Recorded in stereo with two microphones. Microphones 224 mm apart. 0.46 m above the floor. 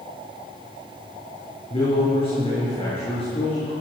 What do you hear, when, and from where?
1.7 s a man speaking: 25° left (ahead or behind), 6.5 m